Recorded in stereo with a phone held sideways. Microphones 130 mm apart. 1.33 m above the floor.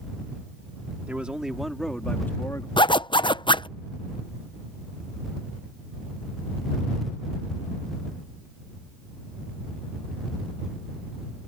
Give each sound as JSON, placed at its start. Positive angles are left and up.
{"t": 1.1, "sound": "a man speaking", "side_deg": -10}
{"t": 2.8, "sound": "a zipper", "side_deg": 40}